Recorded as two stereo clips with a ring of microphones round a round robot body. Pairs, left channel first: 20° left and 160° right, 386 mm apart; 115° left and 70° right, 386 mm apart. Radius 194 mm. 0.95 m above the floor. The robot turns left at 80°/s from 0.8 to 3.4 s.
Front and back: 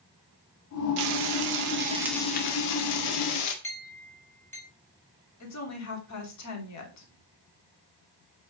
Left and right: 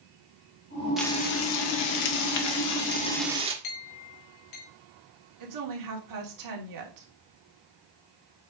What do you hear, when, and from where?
1.0 s frying: 155° right, 1.7 m; by 3.5 s 10° left, 1.7 m
3.6 s a clink: 105° left, 3 m
5.4 s a woman speaking: 25° right, 2.5 m